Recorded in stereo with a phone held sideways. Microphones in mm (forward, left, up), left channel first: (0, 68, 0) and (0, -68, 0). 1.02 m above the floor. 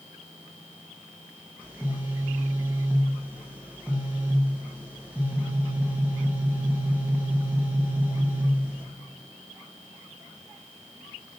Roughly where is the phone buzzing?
Centre.